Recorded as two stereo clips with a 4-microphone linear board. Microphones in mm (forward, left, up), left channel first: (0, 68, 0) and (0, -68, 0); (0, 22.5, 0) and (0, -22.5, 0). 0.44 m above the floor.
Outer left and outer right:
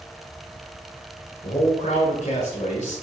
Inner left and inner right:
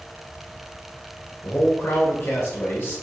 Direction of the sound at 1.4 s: 50° left (ahead or behind).